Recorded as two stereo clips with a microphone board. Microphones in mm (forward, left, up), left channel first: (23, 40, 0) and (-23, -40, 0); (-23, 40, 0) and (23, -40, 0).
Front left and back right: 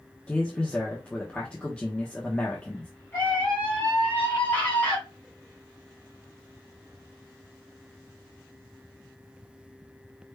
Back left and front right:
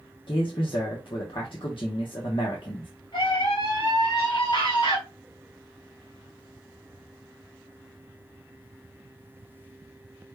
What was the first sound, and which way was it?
A man speaking, 135° left.